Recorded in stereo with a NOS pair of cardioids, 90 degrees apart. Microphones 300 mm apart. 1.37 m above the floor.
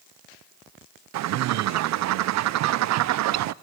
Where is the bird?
60° right, 0.5 m.